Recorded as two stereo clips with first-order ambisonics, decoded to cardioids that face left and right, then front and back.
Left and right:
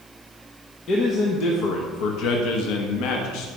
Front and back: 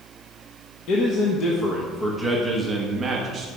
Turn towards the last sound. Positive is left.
turn(degrees=115)